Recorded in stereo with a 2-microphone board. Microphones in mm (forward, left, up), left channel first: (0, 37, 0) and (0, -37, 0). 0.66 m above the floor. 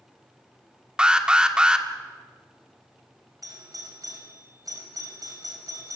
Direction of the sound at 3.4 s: 55° right (ahead or behind).